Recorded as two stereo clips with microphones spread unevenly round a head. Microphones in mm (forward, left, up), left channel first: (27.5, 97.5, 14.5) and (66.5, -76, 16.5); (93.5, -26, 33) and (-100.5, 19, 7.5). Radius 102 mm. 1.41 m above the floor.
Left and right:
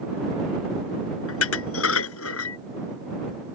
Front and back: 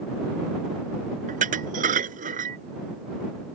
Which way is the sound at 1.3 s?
110° left.